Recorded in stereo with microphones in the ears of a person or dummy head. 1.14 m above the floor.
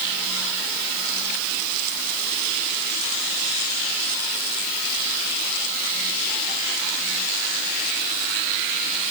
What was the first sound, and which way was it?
Only background noise.